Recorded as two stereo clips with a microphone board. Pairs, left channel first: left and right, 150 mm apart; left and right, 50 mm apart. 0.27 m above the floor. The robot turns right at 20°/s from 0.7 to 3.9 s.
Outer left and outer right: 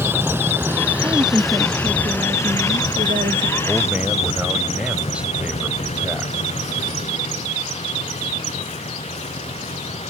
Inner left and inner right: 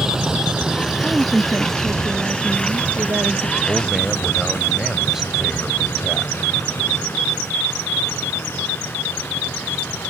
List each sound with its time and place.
0.0 s a vehicle: 15° right (ahead or behind); by 10.1 s 50° left (ahead or behind)
1.0 s a woman speaking: 155° right; by 3.5 s 105° right
3.6 s a man speaking: 5° right (ahead or behind); by 6.3 s 10° right (ahead or behind)